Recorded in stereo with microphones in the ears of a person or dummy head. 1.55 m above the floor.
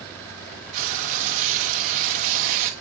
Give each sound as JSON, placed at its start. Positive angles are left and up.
{"t": 0.7, "sound": "frying", "side_deg": -30, "distance_m": 0.8}